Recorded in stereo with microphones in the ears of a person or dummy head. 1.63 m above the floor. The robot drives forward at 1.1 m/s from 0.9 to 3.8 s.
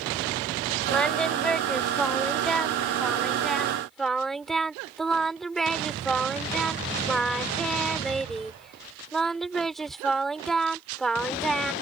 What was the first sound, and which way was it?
Singing, 5° left (ahead or behind).